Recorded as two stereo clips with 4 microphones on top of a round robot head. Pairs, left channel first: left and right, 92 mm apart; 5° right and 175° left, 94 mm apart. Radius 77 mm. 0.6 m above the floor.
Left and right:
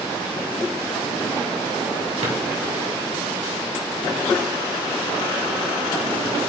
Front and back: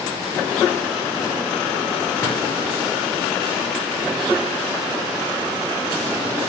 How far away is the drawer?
About 2.5 m.